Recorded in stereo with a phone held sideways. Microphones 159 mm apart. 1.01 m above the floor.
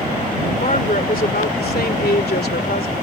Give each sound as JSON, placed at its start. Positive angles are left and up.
{"t": 0.6, "sound": "a woman speaking", "side_deg": 50}